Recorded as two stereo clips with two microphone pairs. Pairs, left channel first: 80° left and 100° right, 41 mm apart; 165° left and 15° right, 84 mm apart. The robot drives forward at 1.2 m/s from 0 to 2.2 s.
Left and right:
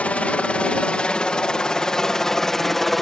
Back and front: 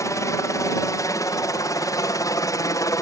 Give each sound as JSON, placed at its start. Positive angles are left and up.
{"t": 0.0, "sound": "a helicopter", "azimuth_deg": 130}